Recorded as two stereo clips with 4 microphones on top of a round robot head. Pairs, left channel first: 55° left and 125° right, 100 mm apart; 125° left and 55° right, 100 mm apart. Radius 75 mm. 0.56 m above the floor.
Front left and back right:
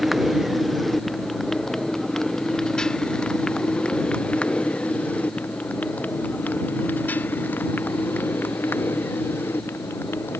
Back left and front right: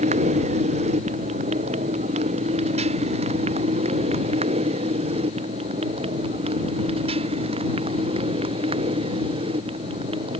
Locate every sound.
0.0 s a motorcycle: 40° right; by 10.4 s 15° right